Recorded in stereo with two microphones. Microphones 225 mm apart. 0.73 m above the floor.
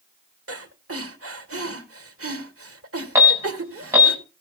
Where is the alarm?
10° right (ahead or behind), 4.5 m.